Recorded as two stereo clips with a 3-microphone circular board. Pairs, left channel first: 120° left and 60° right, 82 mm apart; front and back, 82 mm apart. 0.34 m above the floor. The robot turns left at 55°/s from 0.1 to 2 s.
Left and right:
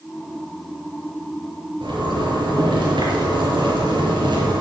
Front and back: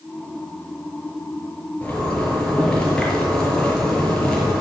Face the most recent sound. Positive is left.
turn(degrees=-80)